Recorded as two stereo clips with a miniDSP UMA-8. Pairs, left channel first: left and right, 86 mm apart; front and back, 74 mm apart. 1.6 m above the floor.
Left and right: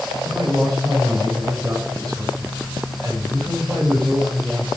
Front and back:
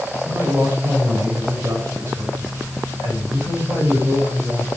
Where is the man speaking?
130° right, 6 m.